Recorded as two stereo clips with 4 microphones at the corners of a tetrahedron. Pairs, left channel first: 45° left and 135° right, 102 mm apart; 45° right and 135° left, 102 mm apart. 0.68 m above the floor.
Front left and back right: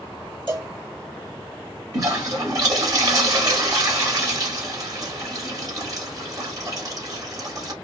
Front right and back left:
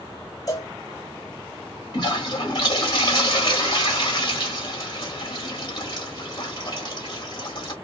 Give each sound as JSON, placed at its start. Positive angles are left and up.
{"t": 0.5, "sound": "a cowbell", "azimuth_deg": -95, "distance_m": 2.5}
{"t": 1.9, "sound": "a toilet flushing", "azimuth_deg": -85, "distance_m": 2.0}